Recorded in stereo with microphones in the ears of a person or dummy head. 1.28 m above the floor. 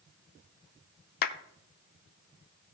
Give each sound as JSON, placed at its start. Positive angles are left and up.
{"t": 1.2, "sound": "a clap", "side_deg": 50, "distance_m": 0.6}